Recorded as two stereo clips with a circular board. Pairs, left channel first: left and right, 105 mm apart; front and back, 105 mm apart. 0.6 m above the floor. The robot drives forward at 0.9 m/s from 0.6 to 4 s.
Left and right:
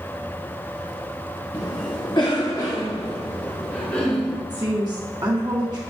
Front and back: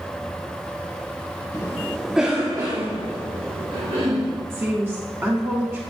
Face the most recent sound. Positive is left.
turn(degrees=-120)